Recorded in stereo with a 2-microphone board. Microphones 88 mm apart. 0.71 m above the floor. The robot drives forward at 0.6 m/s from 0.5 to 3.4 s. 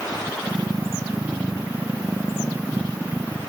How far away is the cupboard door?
No cupboard door in this recording.